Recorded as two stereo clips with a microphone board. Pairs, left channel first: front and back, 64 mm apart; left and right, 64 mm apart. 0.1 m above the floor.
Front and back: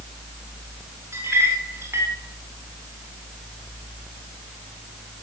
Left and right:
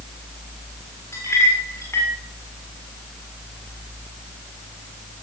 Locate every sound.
1.1 s a clink: 140° left, 7.5 m